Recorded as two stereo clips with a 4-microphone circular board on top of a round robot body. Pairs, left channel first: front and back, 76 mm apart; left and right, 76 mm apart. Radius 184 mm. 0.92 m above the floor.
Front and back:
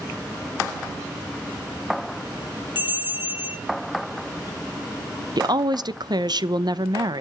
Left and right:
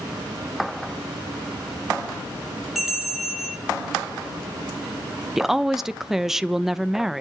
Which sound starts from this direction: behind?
A woman speaking, at 5.4 s.